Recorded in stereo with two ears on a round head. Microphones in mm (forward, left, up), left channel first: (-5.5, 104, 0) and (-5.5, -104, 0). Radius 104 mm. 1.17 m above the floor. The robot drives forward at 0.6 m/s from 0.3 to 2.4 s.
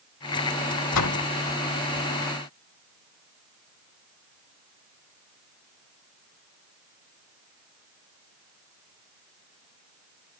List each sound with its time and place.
0.9 s a door slam: 75° left (ahead or behind); by 1.2 s 80° left